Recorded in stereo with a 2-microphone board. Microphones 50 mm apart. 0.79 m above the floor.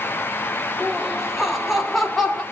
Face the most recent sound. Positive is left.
turn(degrees=5)  # may be behind; listen again after turning